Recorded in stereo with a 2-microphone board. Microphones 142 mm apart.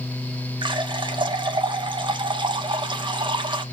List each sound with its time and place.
0.6 s a running tap: 35° right (ahead or behind), 1.0 m